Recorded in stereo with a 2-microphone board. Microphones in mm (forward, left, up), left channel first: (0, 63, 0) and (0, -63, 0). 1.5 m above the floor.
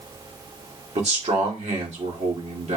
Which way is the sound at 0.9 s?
60° right (ahead or behind).